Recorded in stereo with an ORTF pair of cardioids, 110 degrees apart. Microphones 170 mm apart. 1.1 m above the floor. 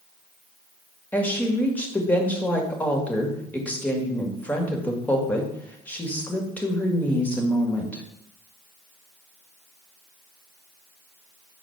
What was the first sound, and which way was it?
A woman speaking, 10° left.